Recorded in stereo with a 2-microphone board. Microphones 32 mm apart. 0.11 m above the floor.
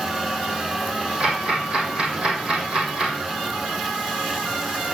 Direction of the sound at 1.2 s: 30° right (ahead or behind).